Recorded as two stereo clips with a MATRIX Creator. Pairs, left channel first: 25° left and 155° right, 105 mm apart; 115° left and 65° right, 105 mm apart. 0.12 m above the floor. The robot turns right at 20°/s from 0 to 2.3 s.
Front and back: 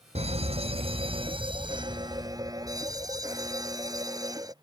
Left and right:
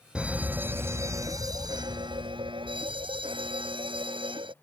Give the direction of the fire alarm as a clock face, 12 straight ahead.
5 o'clock.